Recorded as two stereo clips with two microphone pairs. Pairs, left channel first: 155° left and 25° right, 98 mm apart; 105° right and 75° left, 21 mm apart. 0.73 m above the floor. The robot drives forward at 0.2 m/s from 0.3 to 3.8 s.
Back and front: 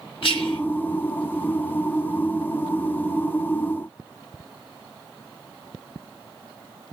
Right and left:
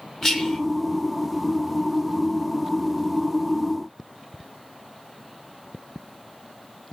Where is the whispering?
175° left, 2.5 m.